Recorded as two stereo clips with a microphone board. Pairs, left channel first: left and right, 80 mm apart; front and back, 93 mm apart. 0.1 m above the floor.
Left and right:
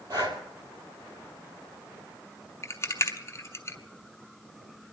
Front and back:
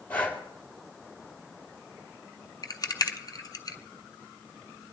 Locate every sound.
0.1 s breathing: 70° right, 2.5 m
2.6 s a rattle: 40° left, 0.9 m